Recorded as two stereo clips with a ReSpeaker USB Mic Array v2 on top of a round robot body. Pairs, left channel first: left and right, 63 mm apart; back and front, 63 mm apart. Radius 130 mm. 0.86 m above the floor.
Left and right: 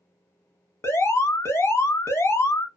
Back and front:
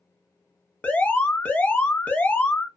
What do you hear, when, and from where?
0.8 s an alarm: 115° left, 1.1 m